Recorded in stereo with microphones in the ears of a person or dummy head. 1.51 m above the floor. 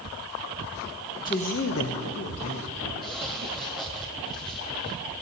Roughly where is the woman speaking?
Centre.